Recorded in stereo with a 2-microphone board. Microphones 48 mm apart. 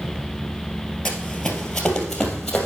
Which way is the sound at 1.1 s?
10° left (ahead or behind).